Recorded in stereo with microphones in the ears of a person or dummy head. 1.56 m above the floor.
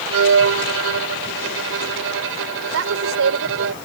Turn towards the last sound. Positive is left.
turn(degrees=-85)